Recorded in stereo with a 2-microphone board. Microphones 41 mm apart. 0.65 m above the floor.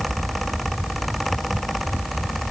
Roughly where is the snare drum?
I don't hear a snare drum.